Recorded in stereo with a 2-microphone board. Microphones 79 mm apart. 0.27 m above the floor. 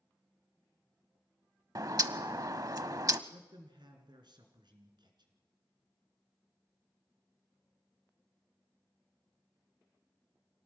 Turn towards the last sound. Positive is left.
turn(degrees=-70)  # may be behind; listen again after turning